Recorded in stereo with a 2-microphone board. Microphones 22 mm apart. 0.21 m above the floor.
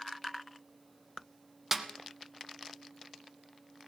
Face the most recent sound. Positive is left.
turn(degrees=-15)  # may be behind; listen again after turning